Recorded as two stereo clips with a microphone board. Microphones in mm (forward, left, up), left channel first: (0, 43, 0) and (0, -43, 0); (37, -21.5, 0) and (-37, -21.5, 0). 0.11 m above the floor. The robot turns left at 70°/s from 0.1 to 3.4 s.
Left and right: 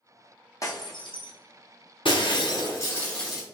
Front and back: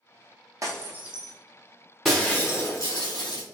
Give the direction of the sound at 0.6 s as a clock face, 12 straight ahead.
7 o'clock.